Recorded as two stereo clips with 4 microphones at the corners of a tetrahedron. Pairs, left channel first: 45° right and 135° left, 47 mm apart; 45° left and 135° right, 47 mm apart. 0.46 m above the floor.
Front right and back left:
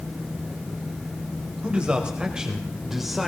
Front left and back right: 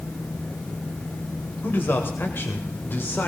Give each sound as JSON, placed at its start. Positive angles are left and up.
{"t": 1.6, "sound": "a man speaking", "azimuth_deg": 70, "distance_m": 2.0}